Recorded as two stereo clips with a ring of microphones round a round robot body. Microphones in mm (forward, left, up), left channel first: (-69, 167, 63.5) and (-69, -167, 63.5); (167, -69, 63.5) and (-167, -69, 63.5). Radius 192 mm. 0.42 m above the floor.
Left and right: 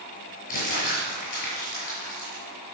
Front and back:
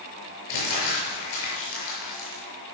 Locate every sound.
0.5 s crumpling: 20° left, 7 m